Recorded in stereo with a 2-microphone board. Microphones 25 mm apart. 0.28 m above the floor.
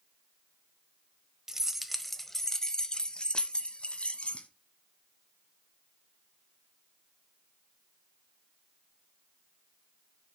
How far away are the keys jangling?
About 0.8 m.